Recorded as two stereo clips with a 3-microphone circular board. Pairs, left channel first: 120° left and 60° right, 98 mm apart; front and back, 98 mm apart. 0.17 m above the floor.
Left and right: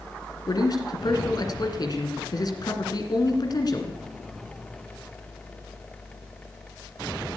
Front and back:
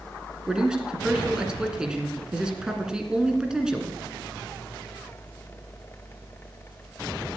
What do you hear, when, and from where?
0.5 s a man speaking: 100° left, 2 m